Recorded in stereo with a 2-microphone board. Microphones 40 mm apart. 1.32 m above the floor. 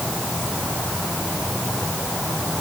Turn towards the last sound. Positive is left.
No sound to turn to.